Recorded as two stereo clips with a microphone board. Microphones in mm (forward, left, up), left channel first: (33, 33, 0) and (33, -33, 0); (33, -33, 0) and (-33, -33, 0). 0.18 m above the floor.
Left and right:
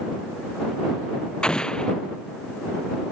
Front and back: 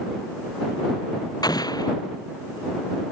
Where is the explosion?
15° left.